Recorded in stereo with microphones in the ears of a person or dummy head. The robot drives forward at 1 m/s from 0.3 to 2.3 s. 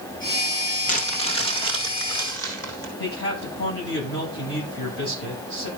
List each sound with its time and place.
0.9 s crumpling: 40° left (ahead or behind), 1.1 m; by 2.9 s 20° left (ahead or behind), 2.5 m
3.0 s a man speaking: 70° left (ahead or behind), 9 m